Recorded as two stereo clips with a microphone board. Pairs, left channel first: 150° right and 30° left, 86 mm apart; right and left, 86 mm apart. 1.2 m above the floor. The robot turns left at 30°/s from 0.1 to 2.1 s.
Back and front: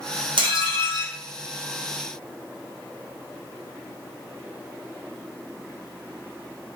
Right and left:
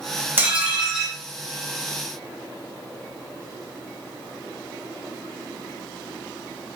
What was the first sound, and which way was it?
Dishes clattering, 25° left.